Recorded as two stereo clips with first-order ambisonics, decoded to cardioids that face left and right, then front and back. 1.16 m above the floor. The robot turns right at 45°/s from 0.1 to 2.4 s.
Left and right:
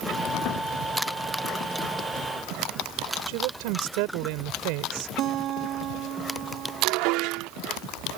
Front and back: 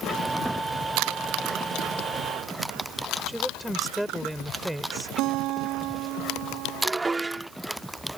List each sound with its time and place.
3.3 s a woman speaking: 90° right
5.2 s a guitar: 140° right
6.8 s dishes clattering: 100° right